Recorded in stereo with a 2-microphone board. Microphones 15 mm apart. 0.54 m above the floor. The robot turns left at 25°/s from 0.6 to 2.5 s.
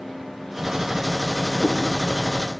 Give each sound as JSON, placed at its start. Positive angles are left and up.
{"t": 1.6, "sound": "a cat meowing", "side_deg": -75, "distance_m": 3.5}